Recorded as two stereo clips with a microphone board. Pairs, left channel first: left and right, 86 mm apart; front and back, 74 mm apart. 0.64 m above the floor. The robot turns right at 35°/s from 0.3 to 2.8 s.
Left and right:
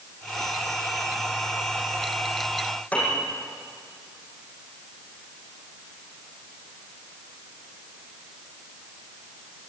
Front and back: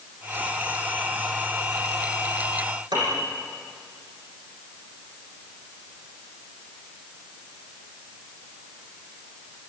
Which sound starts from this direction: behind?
A piano, at 2.9 s.